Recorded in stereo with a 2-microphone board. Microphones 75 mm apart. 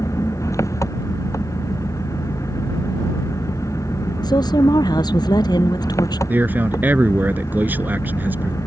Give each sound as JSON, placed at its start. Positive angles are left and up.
{"t": 0.0, "sound": "an engine running", "side_deg": 40}
{"t": 4.2, "sound": "a woman speaking", "side_deg": 60}
{"t": 6.3, "sound": "a man speaking", "side_deg": -25}